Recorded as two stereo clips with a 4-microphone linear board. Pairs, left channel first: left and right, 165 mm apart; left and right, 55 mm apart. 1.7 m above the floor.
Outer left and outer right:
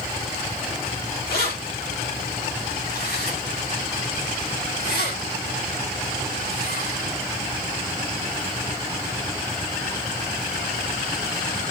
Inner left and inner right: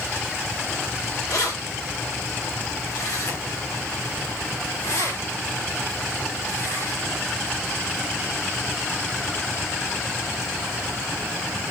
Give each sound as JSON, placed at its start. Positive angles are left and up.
{"t": 1.3, "sound": "keys jangling", "side_deg": 75, "distance_m": 4.5}